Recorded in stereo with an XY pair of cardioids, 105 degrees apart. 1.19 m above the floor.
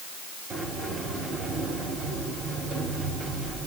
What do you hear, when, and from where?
0.5 s a sliding door: 45° right, 3.5 m